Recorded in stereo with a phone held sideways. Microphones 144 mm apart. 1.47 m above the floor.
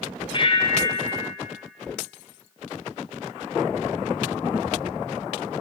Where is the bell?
35° left (ahead or behind), 0.6 m.